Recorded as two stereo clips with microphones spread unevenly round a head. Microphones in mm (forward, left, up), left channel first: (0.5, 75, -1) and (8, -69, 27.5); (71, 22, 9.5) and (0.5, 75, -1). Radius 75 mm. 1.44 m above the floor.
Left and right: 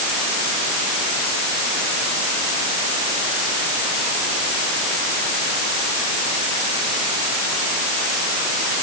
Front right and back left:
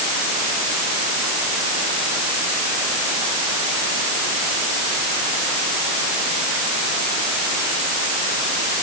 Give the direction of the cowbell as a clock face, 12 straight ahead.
I don't hear a cowbell.